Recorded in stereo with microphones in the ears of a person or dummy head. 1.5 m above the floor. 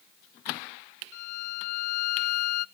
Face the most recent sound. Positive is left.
turn(degrees=55)  # may be behind; listen again after turning